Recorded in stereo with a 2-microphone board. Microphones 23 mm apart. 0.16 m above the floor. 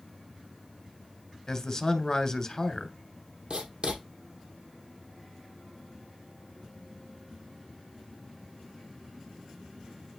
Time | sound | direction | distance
1.5 | a man speaking | 25° left (ahead or behind) | 1.5 m
3.5 | writing | 55° right (ahead or behind) | 2.5 m